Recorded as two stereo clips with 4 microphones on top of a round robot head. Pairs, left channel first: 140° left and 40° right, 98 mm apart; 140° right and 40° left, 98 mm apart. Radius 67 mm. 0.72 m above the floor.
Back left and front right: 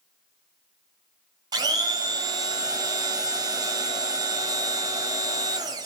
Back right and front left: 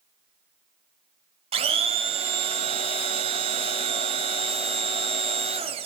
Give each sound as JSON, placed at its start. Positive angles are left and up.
{"t": 1.5, "sound": "a blender", "azimuth_deg": 10, "distance_m": 1.6}